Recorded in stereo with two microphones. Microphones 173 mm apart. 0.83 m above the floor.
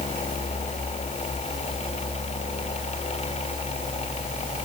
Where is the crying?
No crying in this recording.